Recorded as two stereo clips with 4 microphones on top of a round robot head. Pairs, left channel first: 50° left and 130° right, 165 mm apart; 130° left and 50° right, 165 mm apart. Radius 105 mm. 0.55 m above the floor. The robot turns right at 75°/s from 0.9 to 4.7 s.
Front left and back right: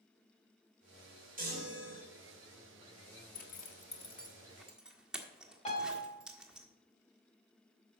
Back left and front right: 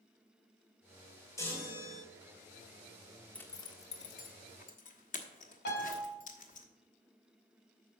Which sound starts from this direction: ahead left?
A zipper, at 3.4 s.